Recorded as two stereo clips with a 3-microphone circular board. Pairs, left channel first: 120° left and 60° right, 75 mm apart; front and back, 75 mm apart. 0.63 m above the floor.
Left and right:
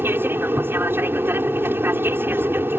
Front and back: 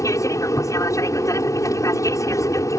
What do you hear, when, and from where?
0.0 s an aircraft: 10° right